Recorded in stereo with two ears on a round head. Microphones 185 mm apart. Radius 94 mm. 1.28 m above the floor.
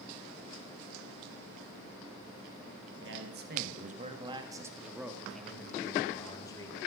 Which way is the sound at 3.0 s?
65° right (ahead or behind).